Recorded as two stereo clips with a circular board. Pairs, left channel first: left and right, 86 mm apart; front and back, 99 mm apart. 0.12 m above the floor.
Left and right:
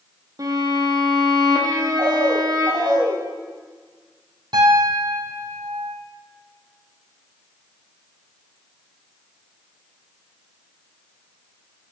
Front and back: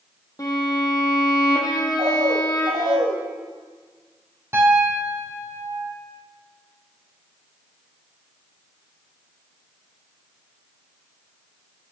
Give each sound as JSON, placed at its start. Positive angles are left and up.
{"t": 0.4, "sound": "a violin", "azimuth_deg": -50, "distance_m": 2.5}
{"t": 2.0, "sound": "a bird", "azimuth_deg": -165, "distance_m": 6.0}
{"t": 4.5, "sound": "a piano", "azimuth_deg": -120, "distance_m": 3.5}